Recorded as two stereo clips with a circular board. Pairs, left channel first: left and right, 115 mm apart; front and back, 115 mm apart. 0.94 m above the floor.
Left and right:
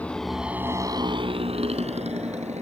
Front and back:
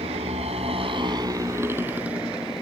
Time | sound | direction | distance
0.0 | a motorcycle | 165° left | ?